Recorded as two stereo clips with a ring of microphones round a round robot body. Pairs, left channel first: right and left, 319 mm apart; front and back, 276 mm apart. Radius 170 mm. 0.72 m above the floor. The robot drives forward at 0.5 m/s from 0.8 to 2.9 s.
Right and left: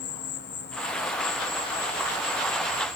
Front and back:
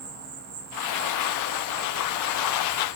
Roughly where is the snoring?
No snoring in this recording.